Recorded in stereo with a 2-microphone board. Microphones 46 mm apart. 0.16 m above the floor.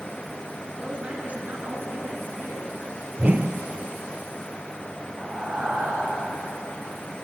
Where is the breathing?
25° right (ahead or behind), 4.5 m.